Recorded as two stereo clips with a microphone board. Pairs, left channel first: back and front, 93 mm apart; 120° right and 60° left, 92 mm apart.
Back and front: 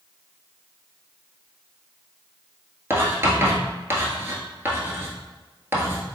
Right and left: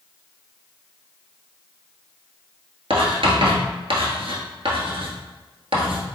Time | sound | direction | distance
2.9 | writing | 60° left | 1.1 m